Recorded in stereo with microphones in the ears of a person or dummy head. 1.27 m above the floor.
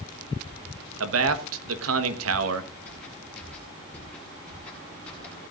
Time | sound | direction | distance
1.0 | a man speaking | 80° right | 1.3 m
2.9 | footsteps | 5° left (ahead or behind) | 5.5 m